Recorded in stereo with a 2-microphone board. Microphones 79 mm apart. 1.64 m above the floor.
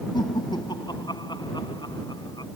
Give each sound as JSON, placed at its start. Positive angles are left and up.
{"t": 0.1, "sound": "laughter", "side_deg": 65}